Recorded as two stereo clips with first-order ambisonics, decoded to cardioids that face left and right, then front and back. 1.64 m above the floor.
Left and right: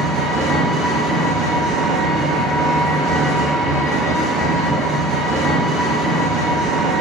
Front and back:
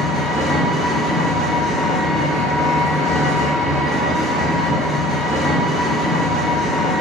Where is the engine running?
90° right, 0.8 m.